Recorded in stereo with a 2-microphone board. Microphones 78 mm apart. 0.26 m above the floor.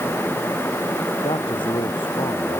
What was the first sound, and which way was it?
A man speaking, 85° left.